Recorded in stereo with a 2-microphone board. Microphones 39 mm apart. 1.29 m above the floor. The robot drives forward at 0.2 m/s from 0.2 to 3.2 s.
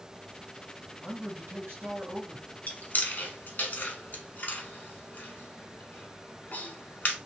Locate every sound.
1.0 s a man speaking: 75° right (ahead or behind), 1.4 m; by 2.5 s 65° right (ahead or behind), 1.4 m
2.7 s chewing: 45° left (ahead or behind), 0.9 m; by 7.2 s 50° left (ahead or behind), 0.9 m